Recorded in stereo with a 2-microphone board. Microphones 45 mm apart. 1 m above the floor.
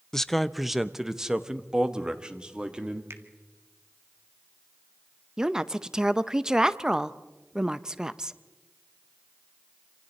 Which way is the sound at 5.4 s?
15° right (ahead or behind).